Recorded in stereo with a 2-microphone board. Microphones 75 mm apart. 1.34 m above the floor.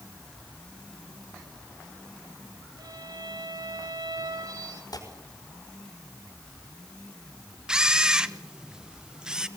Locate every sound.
2.8 s a violin: 70° right (ahead or behind), 4 m
4.9 s tearing paper: 60° left (ahead or behind), 5 m
7.7 s a camera shutter: 10° right (ahead or behind), 0.9 m